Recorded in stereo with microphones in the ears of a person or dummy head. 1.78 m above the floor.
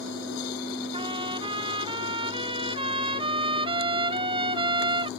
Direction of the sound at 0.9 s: 25° right (ahead or behind).